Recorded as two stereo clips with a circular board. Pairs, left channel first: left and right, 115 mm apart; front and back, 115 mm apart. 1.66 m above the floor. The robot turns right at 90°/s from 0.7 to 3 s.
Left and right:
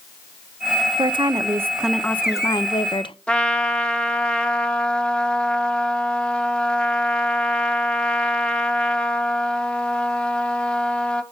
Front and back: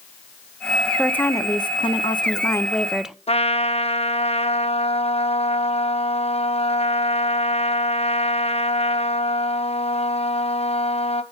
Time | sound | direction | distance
1.0 | a woman speaking | 85° right | 0.5 m
3.3 | a trumpet | 10° left | 0.7 m